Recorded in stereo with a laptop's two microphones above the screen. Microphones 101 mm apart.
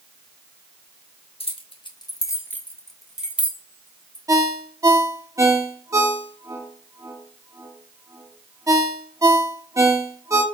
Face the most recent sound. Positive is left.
turn(degrees=-30)  # may be behind; listen again after turning